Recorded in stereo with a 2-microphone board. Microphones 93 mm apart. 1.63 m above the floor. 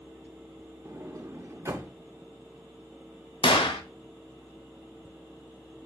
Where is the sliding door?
30° right (ahead or behind), 0.5 m.